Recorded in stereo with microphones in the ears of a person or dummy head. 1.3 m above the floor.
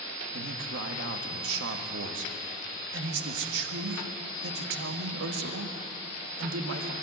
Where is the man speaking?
80° right, 1.8 m.